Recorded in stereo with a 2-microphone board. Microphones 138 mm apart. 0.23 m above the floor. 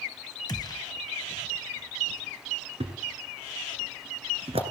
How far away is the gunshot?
About 1.1 m.